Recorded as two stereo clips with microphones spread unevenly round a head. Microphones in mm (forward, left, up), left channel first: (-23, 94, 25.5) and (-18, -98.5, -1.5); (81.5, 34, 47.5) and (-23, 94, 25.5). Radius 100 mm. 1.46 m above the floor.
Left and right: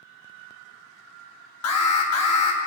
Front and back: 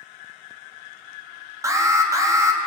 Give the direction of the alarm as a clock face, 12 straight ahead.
9 o'clock.